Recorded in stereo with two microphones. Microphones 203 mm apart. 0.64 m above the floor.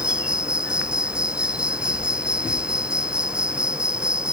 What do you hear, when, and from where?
0.0 s an insect: 5° right (ahead or behind)